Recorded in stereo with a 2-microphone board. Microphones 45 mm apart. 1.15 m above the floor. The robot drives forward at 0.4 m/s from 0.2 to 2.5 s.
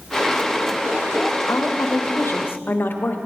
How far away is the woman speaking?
About 0.5 m.